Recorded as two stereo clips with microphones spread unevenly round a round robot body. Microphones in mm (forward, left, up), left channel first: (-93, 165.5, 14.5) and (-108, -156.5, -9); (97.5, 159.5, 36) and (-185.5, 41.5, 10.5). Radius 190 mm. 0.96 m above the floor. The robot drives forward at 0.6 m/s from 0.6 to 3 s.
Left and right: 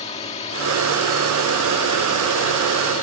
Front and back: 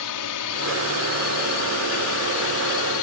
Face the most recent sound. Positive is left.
turn(degrees=15)